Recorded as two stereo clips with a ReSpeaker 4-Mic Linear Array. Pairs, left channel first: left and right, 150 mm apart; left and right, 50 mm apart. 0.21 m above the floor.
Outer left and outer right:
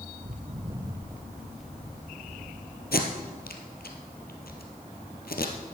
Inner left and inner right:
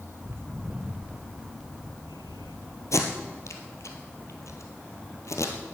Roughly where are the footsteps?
Right.